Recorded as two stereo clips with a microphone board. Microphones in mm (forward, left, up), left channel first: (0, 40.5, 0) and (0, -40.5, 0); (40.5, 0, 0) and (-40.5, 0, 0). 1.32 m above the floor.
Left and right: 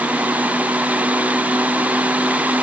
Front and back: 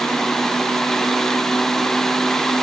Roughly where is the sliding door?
No sliding door in this recording.